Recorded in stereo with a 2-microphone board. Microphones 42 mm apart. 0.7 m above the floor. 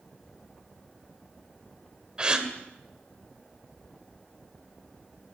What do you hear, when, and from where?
2.2 s a gasp: 20° right (ahead or behind), 2.5 m